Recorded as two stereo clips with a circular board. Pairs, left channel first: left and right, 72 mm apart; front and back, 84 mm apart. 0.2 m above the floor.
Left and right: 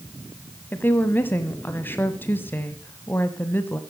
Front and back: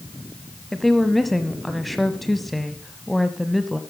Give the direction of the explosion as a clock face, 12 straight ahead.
No explosion in this recording.